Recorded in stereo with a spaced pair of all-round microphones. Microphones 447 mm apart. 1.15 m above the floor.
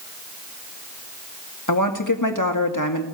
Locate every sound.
1.7 s a woman speaking: 45° left (ahead or behind), 2 m